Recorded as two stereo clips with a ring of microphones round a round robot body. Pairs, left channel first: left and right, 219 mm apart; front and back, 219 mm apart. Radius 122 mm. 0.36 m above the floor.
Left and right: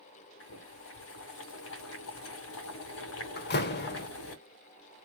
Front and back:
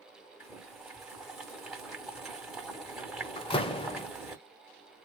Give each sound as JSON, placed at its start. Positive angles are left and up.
{"t": 0.4, "sound": "boiling", "azimuth_deg": 90, "distance_m": 1.8}
{"t": 3.4, "sound": "a door slam", "azimuth_deg": 60, "distance_m": 0.8}